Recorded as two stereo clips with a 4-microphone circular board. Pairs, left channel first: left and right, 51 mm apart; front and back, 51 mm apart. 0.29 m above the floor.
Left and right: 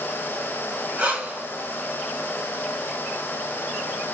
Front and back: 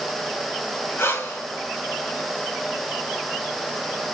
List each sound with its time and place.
1.0 s breathing: 20° right, 3.5 m